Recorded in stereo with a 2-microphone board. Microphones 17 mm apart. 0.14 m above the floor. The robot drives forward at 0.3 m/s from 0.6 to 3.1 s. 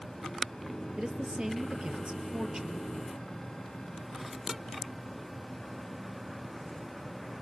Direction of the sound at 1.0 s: 65° right (ahead or behind).